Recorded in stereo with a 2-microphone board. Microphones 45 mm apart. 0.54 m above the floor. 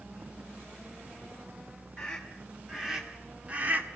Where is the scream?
10° left (ahead or behind), 1.9 m; by 3.9 s 45° right (ahead or behind), 1.5 m.